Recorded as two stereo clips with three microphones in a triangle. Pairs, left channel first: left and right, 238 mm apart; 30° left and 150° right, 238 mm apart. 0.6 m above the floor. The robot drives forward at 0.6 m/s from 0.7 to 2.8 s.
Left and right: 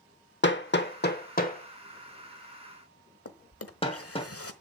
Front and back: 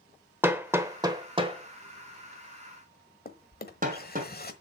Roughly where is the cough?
I don't hear a cough.